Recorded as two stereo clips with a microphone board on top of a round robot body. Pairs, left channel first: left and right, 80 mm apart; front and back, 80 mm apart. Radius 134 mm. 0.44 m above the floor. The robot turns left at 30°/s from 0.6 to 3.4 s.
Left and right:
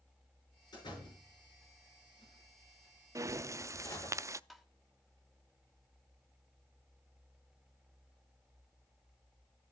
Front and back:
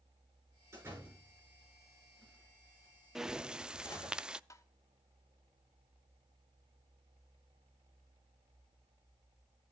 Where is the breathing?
100° right, 0.5 m; by 4.4 s 105° right, 0.5 m.